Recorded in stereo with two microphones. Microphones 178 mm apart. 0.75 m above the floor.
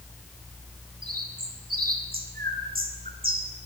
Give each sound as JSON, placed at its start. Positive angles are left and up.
{"t": 1.0, "sound": "a bird", "side_deg": -55, "distance_m": 3.0}